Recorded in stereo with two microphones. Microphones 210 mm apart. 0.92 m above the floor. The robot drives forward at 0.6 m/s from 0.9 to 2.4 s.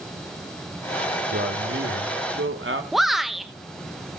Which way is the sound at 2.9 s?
Centre (ahead or behind).